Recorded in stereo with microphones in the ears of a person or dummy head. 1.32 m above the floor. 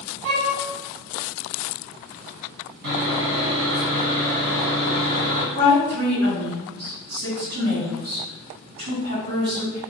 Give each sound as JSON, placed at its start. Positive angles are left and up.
{"t": 0.2, "sound": "a violin", "side_deg": -40, "distance_m": 1.4}
{"t": 2.8, "sound": "sawing", "side_deg": -70, "distance_m": 1.2}
{"t": 5.5, "sound": "a woman speaking", "side_deg": -60, "distance_m": 1.6}